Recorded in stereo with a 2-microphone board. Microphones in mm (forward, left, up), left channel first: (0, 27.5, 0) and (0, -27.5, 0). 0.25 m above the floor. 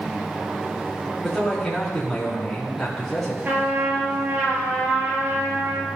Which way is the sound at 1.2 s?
Centre (ahead or behind).